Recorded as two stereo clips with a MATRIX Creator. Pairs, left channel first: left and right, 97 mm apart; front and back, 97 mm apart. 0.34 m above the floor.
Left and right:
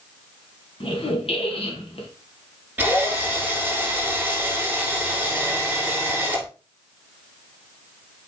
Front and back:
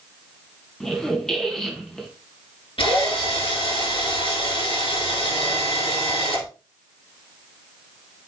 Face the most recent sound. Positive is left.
turn(degrees=-15)